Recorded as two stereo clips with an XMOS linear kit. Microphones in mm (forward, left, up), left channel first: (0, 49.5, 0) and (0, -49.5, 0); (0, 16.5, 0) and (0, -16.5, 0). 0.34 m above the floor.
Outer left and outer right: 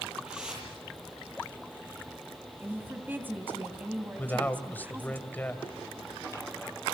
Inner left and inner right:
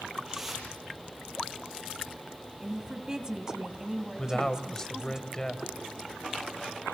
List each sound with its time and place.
0.2 s a whoosh: 10° right (ahead or behind), 9 m
2.6 s a woman speaking: 20° right (ahead or behind), 2.5 m
4.2 s a man speaking: 20° left (ahead or behind), 2.0 m